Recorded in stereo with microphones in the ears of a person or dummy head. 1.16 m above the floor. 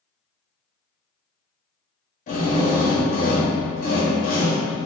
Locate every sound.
2.3 s a drill: 40° left (ahead or behind), 1.0 m